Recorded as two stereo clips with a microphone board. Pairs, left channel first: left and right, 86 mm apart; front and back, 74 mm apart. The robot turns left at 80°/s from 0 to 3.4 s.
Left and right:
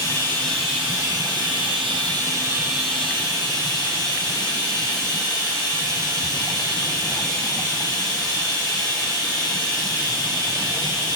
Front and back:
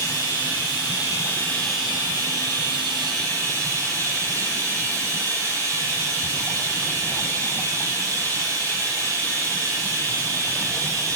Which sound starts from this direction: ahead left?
Running water, at 0.0 s.